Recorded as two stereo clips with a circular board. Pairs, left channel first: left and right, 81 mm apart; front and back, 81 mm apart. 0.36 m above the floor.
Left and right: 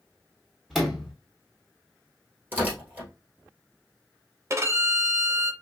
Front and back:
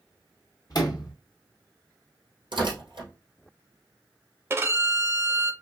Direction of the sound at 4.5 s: 130° right.